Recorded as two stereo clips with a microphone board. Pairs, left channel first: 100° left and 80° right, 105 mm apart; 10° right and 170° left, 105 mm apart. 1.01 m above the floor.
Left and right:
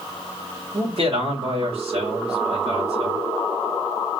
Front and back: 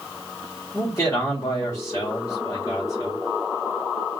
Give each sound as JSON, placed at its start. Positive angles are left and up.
{"t": 0.7, "sound": "a man speaking", "azimuth_deg": -75, "distance_m": 3.0}